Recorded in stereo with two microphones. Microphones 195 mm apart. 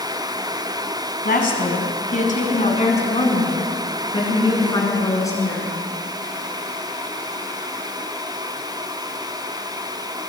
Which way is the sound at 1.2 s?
55° left (ahead or behind).